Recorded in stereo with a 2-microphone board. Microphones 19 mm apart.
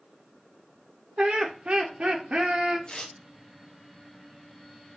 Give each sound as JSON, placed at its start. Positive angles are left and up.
{"t": 1.2, "sound": "laughter", "side_deg": -70, "distance_m": 0.5}
{"t": 2.9, "sound": "tearing paper", "side_deg": 40, "distance_m": 0.6}